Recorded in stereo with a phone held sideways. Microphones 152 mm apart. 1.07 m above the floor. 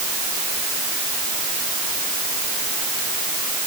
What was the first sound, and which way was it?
Only background noise.